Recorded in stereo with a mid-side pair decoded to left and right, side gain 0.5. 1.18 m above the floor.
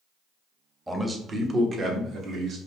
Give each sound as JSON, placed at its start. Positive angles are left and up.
{"t": 0.9, "sound": "a man speaking", "azimuth_deg": -15, "distance_m": 0.8}